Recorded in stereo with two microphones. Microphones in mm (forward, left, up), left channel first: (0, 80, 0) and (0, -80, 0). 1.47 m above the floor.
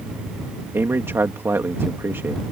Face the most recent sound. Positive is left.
turn(degrees=-15)  # may be behind; listen again after turning